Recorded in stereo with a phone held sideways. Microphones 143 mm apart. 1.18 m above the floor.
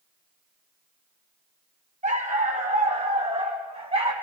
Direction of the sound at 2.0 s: 60° right (ahead or behind).